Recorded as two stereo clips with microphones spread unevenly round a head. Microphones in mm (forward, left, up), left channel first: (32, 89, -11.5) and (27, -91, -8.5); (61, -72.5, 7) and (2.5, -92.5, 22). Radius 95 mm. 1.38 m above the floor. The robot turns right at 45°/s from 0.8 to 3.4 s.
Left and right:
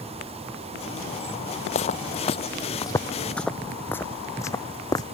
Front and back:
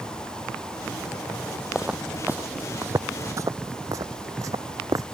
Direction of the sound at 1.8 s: 130° left.